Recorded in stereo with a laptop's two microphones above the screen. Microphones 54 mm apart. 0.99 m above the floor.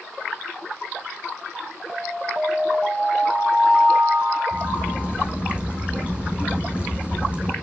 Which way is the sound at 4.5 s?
25° right (ahead or behind).